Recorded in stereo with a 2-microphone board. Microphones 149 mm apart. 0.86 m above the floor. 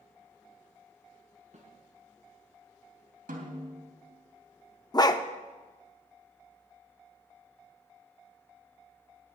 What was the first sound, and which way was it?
A snare drum, 55° right (ahead or behind).